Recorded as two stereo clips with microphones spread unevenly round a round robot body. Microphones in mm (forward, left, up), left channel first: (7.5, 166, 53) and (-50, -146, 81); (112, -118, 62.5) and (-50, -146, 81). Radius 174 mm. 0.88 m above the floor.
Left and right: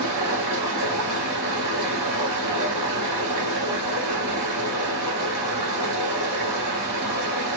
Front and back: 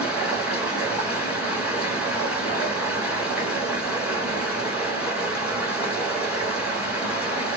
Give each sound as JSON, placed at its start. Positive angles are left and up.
{"t": 0.0, "sound": "running water", "azimuth_deg": -95, "distance_m": 1.2}